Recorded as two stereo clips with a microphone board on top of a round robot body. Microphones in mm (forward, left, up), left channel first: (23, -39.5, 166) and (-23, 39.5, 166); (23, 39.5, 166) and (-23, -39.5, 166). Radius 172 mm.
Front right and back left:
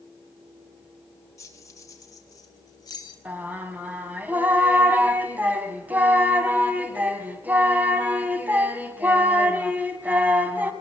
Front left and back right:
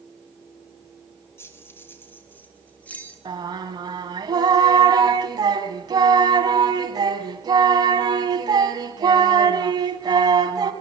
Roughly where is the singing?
Behind.